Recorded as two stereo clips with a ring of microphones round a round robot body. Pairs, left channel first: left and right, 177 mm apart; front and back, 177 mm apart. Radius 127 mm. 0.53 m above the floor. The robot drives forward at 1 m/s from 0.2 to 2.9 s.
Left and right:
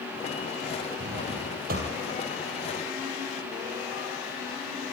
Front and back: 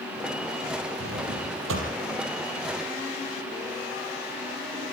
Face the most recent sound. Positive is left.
turn(degrees=-155)